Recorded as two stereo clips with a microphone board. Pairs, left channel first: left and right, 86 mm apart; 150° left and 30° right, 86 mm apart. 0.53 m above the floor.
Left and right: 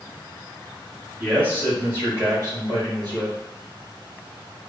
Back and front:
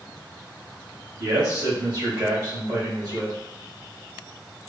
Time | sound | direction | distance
1.2 | a man speaking | 20° right | 2.0 m